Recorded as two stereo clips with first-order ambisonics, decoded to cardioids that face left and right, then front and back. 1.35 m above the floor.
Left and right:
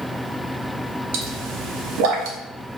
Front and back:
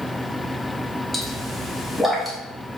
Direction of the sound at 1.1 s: 95° right.